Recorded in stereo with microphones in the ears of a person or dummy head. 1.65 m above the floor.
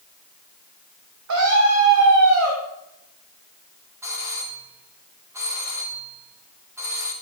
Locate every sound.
1.3 s a scream: 90° right, 3.5 m
4.0 s a doorbell: 15° right (ahead or behind), 2.5 m